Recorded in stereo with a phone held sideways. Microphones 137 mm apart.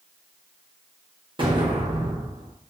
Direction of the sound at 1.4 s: 40° right (ahead or behind).